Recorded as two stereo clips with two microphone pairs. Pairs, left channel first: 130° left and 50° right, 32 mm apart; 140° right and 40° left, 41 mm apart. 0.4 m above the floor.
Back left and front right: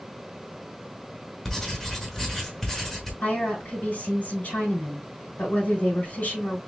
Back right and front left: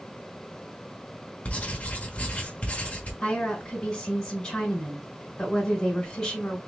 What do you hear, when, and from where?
1.4 s writing: 160° right, 1.1 m
3.2 s a woman speaking: 150° left, 2.5 m